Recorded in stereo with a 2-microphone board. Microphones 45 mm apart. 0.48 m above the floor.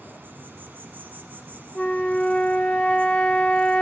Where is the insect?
45° right (ahead or behind), 1.1 m.